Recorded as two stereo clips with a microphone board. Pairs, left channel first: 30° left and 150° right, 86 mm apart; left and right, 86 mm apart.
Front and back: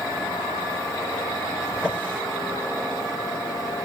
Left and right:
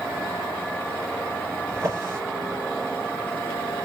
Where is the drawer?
35° right, 2 m.